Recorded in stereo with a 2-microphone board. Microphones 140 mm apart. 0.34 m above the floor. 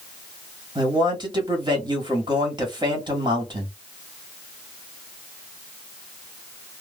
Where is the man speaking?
35° right (ahead or behind), 1.4 m.